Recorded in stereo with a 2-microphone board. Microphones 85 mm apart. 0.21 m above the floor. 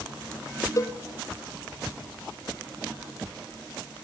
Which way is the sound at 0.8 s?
40° left (ahead or behind).